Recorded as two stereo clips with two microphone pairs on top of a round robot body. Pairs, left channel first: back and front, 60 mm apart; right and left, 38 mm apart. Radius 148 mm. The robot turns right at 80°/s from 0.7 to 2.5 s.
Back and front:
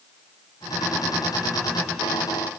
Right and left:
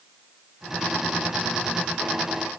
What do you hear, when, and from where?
Only background noise.